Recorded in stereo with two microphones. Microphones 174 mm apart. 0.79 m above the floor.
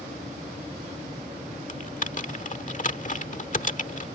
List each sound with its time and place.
1.7 s typing on a keyboard: 45° left (ahead or behind)